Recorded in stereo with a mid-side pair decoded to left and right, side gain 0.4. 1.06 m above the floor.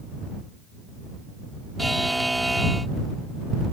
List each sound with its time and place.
1.8 s a buzzer: 5° right